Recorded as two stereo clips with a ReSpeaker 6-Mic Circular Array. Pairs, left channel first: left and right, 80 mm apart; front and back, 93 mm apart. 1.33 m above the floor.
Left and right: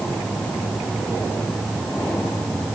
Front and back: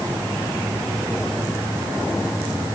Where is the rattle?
I don't hear a rattle.